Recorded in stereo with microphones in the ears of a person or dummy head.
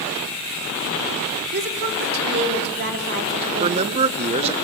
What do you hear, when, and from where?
1.5 s a woman speaking: 55° right (ahead or behind), 3.5 m
3.6 s a man speaking: 30° right (ahead or behind), 0.6 m